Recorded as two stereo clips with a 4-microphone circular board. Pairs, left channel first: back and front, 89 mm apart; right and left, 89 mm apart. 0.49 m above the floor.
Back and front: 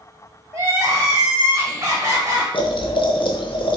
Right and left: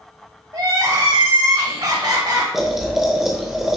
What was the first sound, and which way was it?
Crying, 55° left.